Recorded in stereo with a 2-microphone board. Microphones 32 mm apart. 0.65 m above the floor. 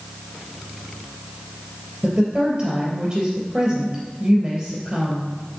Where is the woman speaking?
20° right (ahead or behind), 3 m.